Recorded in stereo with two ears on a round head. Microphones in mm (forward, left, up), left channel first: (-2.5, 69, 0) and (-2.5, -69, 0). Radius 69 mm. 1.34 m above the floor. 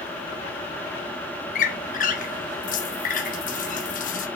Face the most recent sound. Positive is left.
turn(degrees=55)  # may be behind; listen again after turning